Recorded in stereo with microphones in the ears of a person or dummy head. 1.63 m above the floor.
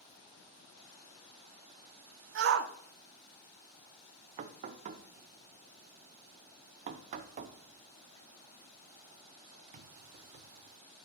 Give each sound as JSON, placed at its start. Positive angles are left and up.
{"t": 2.4, "sound": "a shout", "side_deg": -65, "distance_m": 0.9}
{"t": 4.4, "sound": "knocking", "side_deg": -35, "distance_m": 0.6}